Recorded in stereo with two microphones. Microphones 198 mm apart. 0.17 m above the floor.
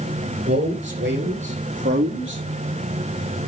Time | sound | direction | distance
0.5 | a man speaking | 60° right (ahead or behind) | 3.5 m